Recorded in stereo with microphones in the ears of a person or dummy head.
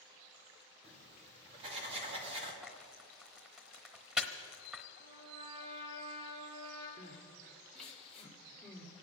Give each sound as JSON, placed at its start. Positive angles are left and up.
{"t": 0.8, "sound": "writing", "side_deg": -35, "distance_m": 2.5}
{"t": 2.6, "sound": "frying", "side_deg": 0, "distance_m": 1.0}
{"t": 5.0, "sound": "a trumpet", "side_deg": -25, "distance_m": 4.5}
{"t": 7.0, "sound": "crying", "side_deg": 5, "distance_m": 2.0}